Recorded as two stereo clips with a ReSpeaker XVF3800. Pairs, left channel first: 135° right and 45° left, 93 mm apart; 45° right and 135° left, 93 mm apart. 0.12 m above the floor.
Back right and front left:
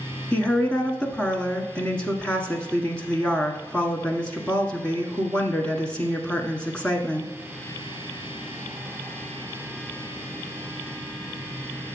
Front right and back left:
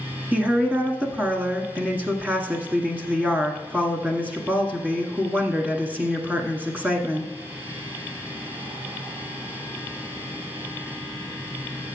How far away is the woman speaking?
About 1.2 m.